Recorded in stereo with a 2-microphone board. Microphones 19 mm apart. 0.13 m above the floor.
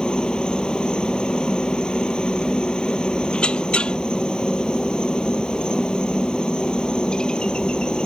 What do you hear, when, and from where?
0.0 s a helicopter: 50° left (ahead or behind)
3.3 s a squeak: 75° left (ahead or behind)